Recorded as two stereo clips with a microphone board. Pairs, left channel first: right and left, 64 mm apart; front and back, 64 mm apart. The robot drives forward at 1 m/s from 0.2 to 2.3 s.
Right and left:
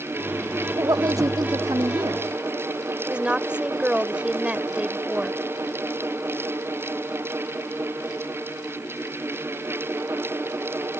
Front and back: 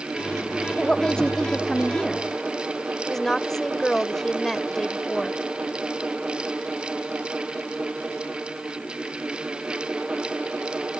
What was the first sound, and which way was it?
A woman speaking, 75° left.